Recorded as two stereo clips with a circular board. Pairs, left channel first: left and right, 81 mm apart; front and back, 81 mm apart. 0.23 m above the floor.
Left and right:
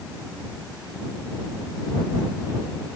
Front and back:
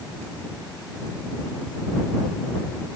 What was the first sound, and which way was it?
Only background noise.